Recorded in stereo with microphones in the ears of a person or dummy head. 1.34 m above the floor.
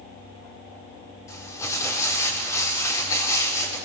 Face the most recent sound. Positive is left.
turn(degrees=15)  # may be behind; listen again after turning